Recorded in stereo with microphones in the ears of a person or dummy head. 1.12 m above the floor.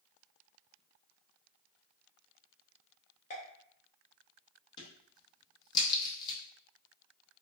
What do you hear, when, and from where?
3.3 s a pop: 35° left (ahead or behind), 0.6 m
4.8 s a crack: 15° left (ahead or behind), 0.7 m